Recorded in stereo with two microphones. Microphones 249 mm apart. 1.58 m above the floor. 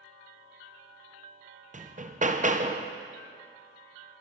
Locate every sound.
1.7 s hammering: 30° right (ahead or behind), 0.8 m